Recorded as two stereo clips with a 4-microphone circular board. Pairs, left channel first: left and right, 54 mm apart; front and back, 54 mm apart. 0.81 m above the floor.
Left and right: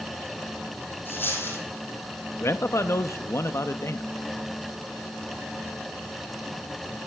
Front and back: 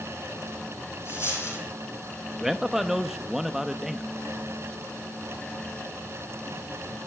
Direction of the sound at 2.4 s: 100° left.